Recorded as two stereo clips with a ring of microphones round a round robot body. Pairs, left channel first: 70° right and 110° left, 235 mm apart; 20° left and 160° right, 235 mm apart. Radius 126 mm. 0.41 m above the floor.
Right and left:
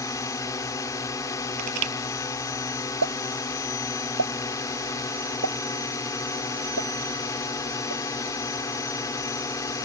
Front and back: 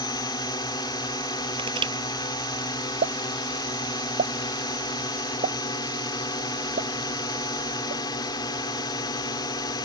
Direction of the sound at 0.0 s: 15° right.